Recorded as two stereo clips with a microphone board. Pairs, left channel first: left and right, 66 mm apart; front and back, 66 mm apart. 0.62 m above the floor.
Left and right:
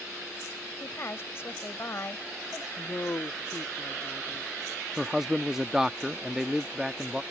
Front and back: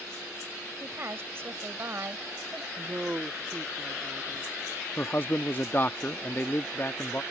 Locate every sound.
0.8 s a woman speaking: 135° left
2.8 s a woman speaking: 125° left
5.0 s a man speaking: 15° right